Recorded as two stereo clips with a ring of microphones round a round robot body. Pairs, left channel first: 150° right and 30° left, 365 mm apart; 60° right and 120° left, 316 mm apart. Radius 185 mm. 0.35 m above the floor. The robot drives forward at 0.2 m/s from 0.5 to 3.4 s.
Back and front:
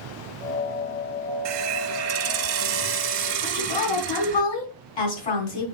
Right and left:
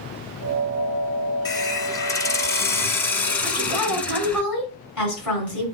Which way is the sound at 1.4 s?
15° left.